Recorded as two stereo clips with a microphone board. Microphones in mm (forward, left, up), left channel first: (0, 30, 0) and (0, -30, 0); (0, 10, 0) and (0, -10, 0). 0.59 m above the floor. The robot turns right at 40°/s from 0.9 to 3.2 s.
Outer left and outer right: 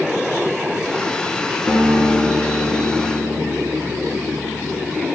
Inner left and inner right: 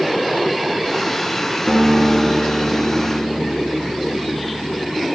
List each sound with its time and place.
1.7 s a guitar: 35° left, 2.0 m; by 5.0 s 95° left, 2.0 m